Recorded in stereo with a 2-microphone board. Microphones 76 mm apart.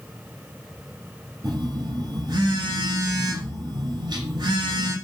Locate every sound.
1.4 s a phone buzzing: 70° right (ahead or behind), 0.8 m